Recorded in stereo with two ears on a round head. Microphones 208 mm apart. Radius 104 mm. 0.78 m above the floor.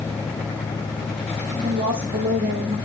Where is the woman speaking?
35° right (ahead or behind), 2.0 m.